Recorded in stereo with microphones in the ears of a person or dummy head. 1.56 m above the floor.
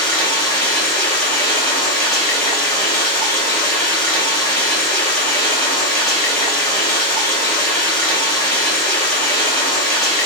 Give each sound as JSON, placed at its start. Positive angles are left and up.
{"t": 0.0, "sound": "running water", "side_deg": 10, "distance_m": 1.2}